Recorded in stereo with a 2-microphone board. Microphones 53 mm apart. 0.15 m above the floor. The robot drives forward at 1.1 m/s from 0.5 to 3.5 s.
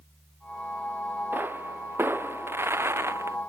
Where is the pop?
40° right (ahead or behind); by 3.4 s 60° right (ahead or behind).